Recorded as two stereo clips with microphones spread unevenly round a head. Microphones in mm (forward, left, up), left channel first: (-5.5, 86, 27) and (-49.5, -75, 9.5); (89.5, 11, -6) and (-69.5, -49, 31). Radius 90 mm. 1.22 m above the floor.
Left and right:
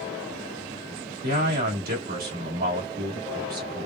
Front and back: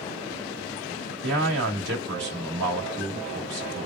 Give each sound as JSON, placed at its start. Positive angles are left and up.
{"t": 1.2, "sound": "a man speaking", "azimuth_deg": -135, "distance_m": 1.7}